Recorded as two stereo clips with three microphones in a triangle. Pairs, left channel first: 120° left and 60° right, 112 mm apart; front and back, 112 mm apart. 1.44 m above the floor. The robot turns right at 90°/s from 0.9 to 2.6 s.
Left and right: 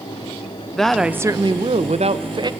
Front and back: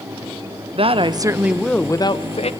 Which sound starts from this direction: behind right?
A woman speaking, at 0.8 s.